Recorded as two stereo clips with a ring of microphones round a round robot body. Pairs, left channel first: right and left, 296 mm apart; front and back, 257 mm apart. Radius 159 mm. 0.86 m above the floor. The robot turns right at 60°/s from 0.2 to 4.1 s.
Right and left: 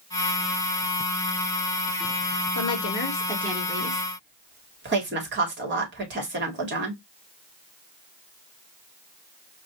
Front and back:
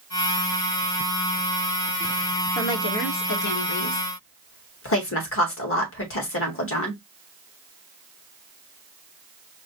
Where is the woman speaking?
55° right, 2.0 m; by 7.0 s 35° left, 2.0 m.